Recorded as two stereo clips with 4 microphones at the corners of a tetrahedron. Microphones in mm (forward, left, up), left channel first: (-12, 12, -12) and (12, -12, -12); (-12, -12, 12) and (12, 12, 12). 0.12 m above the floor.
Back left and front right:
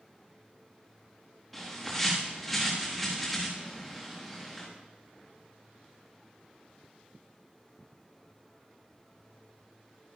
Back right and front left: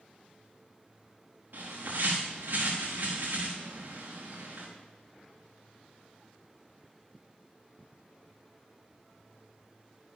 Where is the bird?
40° left, 4.5 m.